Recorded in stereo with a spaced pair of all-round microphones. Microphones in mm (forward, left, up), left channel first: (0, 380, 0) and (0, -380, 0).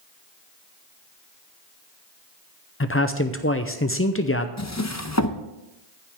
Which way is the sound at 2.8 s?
20° left (ahead or behind).